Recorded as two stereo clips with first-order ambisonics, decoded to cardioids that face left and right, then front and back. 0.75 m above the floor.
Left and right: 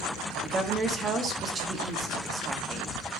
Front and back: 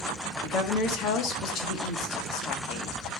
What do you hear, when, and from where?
0.4 s a woman speaking: 30° right, 1.2 m